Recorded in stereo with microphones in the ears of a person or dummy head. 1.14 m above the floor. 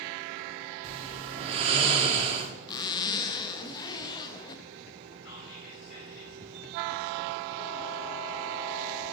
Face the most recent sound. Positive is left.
turn(degrees=75)  # may be behind; listen again after turning